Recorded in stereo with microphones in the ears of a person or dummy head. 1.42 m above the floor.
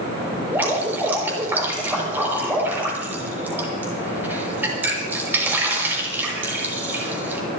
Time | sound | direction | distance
0.5 | dripping | 10° right (ahead or behind) | 6.5 m